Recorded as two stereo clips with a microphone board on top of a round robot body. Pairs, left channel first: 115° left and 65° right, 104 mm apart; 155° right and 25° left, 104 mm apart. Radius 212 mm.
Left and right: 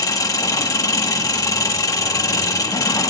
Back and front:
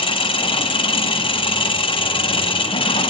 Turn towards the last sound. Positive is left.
turn(degrees=170)